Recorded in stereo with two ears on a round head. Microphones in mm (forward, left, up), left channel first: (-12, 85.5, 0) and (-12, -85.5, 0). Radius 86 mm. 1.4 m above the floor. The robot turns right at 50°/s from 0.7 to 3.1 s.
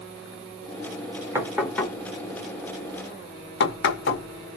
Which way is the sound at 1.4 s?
15° right (ahead or behind).